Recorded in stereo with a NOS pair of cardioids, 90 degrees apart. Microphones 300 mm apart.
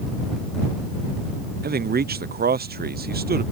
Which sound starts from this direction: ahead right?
A man speaking, at 1.6 s.